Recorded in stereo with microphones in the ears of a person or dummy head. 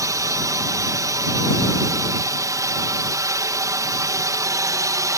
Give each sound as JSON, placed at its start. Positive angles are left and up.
{"t": 0.0, "sound": "a drone", "side_deg": -15}